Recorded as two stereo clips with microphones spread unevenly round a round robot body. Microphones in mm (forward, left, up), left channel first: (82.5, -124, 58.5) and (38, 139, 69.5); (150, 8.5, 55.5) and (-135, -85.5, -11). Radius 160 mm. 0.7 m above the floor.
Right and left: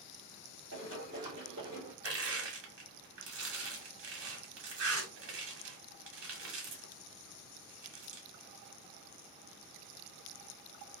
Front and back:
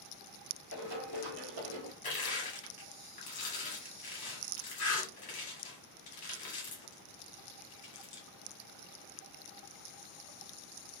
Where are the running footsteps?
150° left, 1.7 m; by 1.9 s 175° right, 1.3 m.